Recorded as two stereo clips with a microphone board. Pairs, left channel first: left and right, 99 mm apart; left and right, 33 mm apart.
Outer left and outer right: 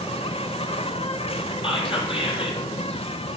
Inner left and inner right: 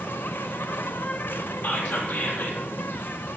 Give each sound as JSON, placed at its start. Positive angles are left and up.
{"t": 0.0, "sound": "an insect", "side_deg": 75, "distance_m": 0.8}
{"t": 1.6, "sound": "whispering", "side_deg": 65, "distance_m": 4.0}